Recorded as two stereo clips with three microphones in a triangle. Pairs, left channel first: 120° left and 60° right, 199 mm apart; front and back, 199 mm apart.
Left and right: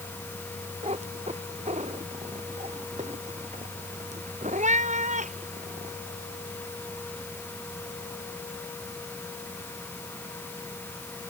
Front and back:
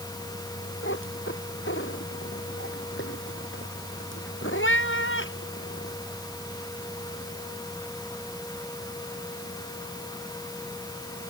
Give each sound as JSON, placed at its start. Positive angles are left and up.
{"t": 0.8, "sound": "a cat meowing", "azimuth_deg": -5}